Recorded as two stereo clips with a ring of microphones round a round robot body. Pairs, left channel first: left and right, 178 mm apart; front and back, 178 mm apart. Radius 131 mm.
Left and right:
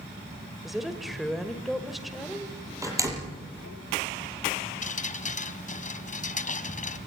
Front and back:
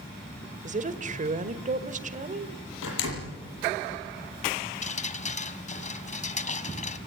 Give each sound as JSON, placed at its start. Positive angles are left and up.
{"t": 0.6, "sound": "a woman speaking", "azimuth_deg": 180, "distance_m": 1.5}
{"t": 2.8, "sound": "a door slam", "azimuth_deg": -15, "distance_m": 7.0}
{"t": 4.8, "sound": "dripping", "azimuth_deg": 45, "distance_m": 2.0}